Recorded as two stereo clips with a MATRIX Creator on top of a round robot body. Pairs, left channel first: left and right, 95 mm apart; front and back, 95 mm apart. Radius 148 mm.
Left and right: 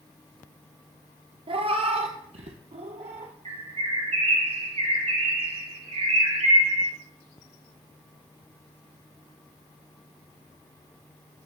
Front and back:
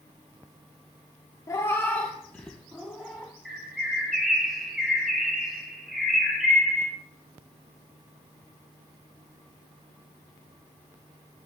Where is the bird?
95° right, 3.5 m.